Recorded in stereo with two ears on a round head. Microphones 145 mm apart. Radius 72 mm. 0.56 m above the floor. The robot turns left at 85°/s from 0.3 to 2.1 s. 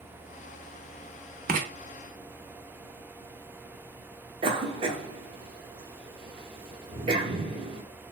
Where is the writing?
60° right (ahead or behind), 0.7 m; by 1.7 s 50° right (ahead or behind), 0.7 m.